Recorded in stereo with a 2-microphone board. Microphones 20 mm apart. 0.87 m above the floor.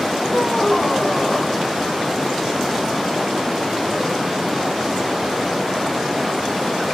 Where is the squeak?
60° left (ahead or behind), 3 m.